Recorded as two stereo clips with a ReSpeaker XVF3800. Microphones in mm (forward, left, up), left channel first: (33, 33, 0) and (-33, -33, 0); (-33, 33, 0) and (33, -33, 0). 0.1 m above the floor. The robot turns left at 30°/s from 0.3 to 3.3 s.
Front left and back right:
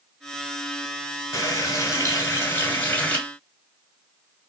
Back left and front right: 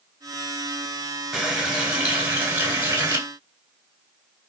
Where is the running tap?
40° left, 0.9 m; by 3.2 s 15° right, 0.9 m.